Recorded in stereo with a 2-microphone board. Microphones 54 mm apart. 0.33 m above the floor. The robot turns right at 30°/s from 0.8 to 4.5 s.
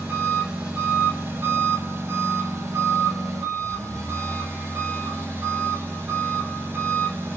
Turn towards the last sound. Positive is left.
turn(degrees=-40)